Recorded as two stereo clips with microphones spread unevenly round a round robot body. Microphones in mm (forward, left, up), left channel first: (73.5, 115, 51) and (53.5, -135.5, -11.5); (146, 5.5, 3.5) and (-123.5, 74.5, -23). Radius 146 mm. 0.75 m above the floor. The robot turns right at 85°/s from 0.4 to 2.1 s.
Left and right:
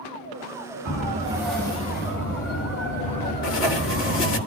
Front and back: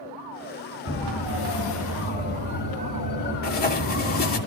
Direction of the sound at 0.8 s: 60° right.